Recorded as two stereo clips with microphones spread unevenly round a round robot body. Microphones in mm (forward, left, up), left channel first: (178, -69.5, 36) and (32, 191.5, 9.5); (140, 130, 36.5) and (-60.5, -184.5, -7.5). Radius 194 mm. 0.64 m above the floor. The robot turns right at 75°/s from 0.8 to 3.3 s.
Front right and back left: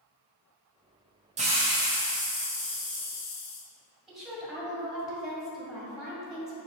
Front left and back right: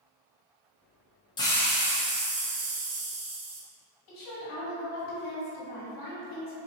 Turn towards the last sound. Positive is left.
turn(degrees=35)